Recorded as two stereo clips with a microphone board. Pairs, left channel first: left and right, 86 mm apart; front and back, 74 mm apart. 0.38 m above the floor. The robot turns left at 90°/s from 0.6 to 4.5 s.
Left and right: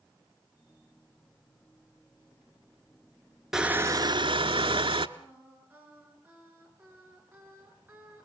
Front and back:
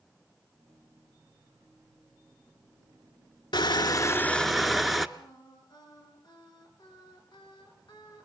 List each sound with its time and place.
3.5 s crushing: 5° right, 1.0 m; by 5.1 s 90° right, 1.0 m
5.2 s singing: 20° right, 5.5 m